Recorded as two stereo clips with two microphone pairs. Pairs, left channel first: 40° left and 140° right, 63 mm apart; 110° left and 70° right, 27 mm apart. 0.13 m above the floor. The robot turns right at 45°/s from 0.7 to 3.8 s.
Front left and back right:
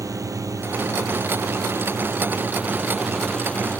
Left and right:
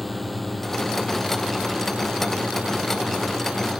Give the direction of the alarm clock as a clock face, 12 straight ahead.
I don't hear an alarm clock.